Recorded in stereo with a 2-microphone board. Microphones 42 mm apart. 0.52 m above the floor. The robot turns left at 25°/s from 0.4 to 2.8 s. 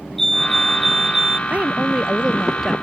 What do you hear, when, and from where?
0.2 s a fire alarm: 5° left (ahead or behind); by 1.4 s 15° right (ahead or behind)
1.5 s a woman speaking: 145° right; by 2.7 s 175° right